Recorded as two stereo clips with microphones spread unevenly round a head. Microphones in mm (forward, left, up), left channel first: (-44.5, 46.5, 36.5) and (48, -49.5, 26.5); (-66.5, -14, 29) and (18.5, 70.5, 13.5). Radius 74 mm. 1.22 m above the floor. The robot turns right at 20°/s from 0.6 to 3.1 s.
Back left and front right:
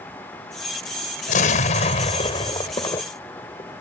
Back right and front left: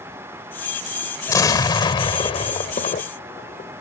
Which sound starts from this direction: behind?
An explosion, at 1.3 s.